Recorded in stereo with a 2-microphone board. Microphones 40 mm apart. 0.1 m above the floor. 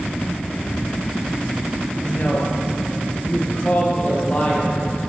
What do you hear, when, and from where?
2.0 s a woman speaking: 40° left (ahead or behind), 1.5 m; by 4.8 s 30° left (ahead or behind), 2.5 m